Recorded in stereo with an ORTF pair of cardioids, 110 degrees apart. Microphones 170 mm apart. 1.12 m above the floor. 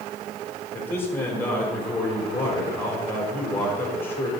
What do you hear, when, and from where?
0.7 s a man speaking: 15° left, 3 m